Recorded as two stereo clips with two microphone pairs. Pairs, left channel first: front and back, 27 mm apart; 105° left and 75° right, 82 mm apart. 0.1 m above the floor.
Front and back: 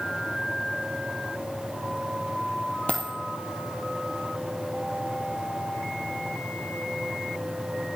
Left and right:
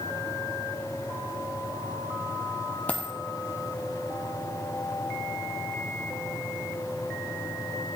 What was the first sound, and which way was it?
A dropped coin, 30° left.